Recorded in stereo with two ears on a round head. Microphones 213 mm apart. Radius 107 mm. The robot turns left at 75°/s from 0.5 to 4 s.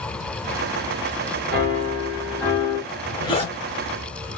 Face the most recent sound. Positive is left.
turn(degrees=90)